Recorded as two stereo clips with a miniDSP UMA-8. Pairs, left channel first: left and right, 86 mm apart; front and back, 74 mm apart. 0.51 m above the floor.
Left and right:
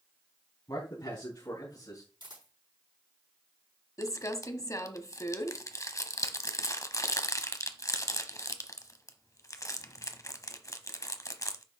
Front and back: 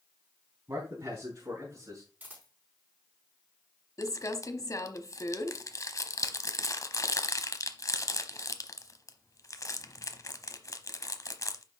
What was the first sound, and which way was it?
A man speaking, 135° left.